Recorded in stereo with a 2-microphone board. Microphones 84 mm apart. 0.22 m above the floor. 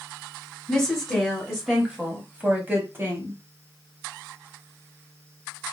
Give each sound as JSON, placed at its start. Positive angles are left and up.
{"t": 0.7, "sound": "a woman speaking", "side_deg": 5, "distance_m": 1.5}